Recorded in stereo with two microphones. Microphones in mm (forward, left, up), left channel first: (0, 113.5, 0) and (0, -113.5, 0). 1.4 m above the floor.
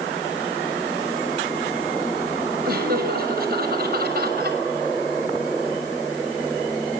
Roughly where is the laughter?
Right.